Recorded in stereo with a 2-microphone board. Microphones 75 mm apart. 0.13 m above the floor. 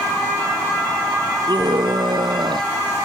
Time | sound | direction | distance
1.5 | a scream | 80° right | ?